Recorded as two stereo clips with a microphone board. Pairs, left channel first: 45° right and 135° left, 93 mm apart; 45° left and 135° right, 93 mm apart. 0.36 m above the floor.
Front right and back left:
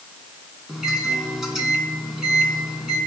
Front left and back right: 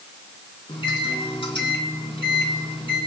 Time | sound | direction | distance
0.7 | a microwave | 50° left | 3 m